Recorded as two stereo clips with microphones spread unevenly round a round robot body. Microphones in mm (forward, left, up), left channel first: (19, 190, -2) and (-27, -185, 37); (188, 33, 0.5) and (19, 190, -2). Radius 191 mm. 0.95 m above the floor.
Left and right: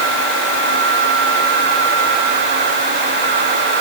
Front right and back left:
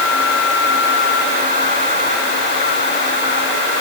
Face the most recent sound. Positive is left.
No sound to turn to.